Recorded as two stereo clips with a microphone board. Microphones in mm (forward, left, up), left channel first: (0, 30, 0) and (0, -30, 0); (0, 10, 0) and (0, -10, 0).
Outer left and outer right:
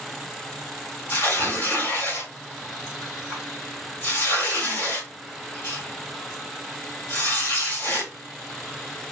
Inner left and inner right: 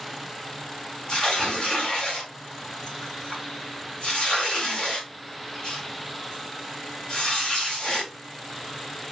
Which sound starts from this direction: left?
Tearing paper, at 1.1 s.